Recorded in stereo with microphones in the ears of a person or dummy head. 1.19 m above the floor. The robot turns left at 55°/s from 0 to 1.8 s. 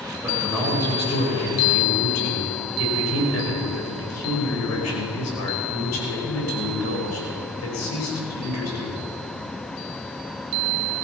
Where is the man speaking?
165° right, 5 m; by 9.0 s 110° left, 5 m.